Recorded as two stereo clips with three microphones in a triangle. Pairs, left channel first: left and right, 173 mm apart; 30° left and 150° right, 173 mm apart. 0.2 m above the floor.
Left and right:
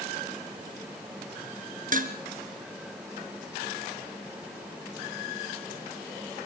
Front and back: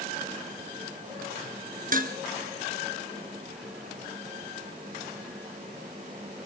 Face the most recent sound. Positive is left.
turn(degrees=-120)